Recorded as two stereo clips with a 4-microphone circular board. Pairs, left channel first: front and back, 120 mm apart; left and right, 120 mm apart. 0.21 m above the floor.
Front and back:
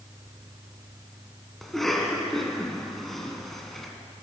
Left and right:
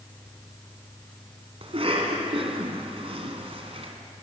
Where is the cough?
90° right, 2 m.